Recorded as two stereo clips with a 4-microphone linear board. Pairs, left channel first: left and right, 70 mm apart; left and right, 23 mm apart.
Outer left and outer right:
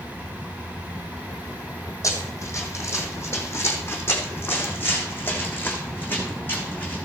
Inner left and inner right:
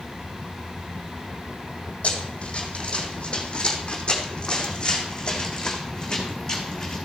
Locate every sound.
2.0 s running footsteps: 45° left (ahead or behind), 3.5 m; by 7.0 s 25° left (ahead or behind), 5 m